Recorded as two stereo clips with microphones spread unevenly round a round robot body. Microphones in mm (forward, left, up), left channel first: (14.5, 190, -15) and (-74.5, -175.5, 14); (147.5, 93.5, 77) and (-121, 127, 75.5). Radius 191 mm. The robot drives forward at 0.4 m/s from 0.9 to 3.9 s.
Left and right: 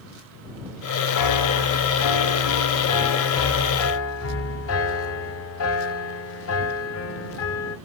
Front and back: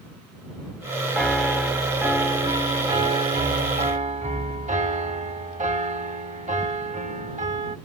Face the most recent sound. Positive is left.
turn(degrees=115)